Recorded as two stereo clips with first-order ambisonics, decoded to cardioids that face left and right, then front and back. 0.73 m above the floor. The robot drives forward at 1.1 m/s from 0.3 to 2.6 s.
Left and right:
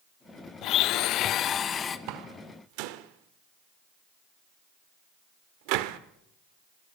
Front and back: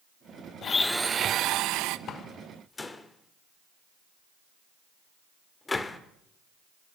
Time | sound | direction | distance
0.6 | a blender | 55° left | 0.7 m
2.1 | a door slam | 60° right | 1.7 m